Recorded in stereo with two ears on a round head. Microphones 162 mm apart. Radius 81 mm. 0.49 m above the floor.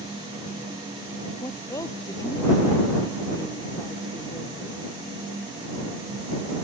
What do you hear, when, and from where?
1.4 s a woman speaking: 20° left (ahead or behind)